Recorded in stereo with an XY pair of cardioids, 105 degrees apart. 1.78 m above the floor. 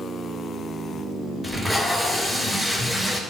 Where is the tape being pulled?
5° left, 5.5 m.